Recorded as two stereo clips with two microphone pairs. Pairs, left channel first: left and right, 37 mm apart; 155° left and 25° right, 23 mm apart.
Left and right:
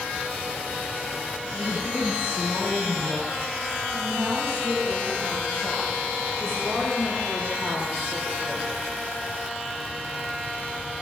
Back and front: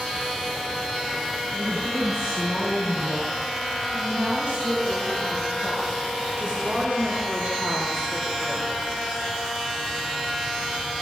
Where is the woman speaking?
85° right, 9 m; by 8.8 s 50° right, 4.5 m.